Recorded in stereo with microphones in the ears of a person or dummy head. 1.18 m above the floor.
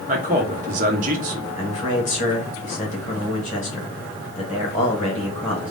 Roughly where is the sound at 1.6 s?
Left.